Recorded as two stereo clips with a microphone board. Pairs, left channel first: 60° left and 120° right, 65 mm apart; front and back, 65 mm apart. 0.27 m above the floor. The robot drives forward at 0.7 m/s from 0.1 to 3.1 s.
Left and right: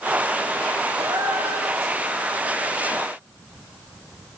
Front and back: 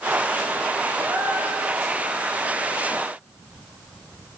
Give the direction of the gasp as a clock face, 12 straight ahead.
4 o'clock.